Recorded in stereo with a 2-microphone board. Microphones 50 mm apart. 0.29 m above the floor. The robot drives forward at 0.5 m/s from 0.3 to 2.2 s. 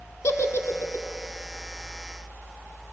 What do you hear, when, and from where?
0.2 s a giggle: 80° left, 0.6 m; by 1.1 s 60° left (ahead or behind), 0.7 m